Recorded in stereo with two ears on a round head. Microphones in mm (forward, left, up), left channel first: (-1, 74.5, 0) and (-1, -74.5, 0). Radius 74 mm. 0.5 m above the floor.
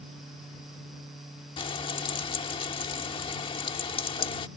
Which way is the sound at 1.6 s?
30° left (ahead or behind).